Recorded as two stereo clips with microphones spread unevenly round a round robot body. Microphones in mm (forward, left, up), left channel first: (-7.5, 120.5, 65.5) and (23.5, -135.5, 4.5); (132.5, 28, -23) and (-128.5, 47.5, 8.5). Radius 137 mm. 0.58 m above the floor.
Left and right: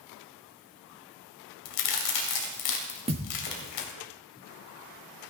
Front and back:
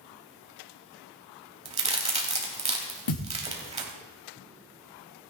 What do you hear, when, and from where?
1.6 s a crack: 110° left, 3 m
3.1 s a thud: 15° right, 3 m